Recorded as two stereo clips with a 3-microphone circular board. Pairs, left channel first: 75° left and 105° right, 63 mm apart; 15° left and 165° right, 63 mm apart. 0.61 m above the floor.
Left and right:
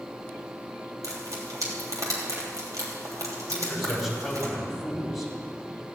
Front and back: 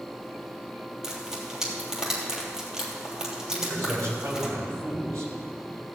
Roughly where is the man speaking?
Behind.